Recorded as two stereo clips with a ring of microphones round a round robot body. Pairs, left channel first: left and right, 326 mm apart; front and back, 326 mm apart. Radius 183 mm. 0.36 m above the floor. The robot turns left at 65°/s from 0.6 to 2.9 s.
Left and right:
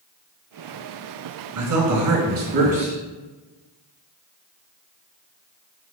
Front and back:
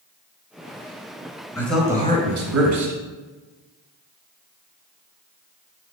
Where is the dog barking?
No dog barking in this recording.